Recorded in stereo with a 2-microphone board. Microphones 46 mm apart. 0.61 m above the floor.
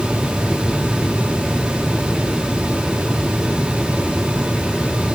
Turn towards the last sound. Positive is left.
No sound to turn to.